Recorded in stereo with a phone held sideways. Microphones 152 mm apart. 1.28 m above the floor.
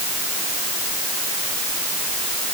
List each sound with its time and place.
Only background noise.